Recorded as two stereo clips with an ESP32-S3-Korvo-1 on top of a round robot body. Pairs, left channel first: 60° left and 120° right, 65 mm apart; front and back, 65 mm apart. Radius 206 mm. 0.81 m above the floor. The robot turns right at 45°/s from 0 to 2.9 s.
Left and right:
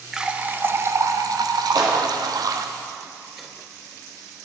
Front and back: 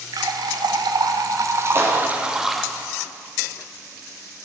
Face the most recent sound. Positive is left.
turn(degrees=-80)